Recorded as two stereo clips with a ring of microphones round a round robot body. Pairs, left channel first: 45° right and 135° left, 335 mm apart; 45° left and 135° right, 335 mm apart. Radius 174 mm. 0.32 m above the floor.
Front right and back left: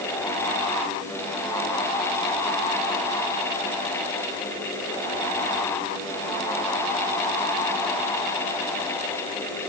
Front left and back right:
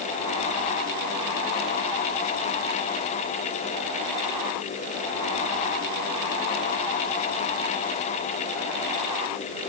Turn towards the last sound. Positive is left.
No sound to turn to.